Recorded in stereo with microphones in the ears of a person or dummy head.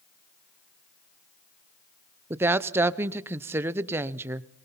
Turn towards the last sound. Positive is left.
turn(degrees=-15)  # may be behind; listen again after turning